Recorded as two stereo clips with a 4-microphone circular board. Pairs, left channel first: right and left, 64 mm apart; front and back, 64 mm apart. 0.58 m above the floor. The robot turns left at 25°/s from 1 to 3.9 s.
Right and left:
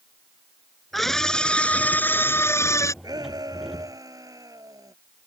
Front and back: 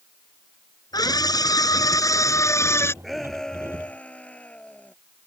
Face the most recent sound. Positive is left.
turn(degrees=70)